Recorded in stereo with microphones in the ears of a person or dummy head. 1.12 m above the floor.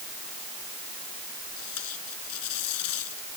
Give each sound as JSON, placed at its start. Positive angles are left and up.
{"t": 1.6, "sound": "tape being pulled", "side_deg": 80}